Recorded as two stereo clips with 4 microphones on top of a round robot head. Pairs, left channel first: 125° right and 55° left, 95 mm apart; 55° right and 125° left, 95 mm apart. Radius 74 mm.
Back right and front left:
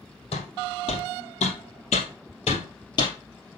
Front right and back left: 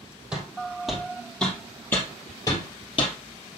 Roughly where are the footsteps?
Behind right.